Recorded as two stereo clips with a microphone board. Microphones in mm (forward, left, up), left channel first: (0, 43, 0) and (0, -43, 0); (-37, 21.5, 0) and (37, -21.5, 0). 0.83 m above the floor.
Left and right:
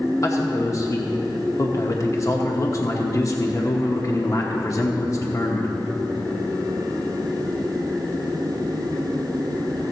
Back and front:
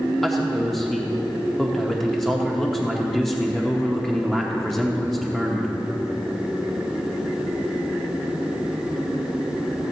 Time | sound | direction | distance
0.2 | a man speaking | 65° left | 0.9 m